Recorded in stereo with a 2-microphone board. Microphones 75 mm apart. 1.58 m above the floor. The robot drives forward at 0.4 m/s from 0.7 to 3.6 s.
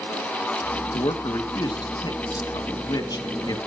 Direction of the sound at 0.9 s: 85° left.